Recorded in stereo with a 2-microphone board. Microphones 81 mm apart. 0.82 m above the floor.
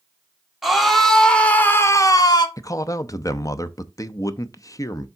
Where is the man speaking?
45° left (ahead or behind), 0.6 m.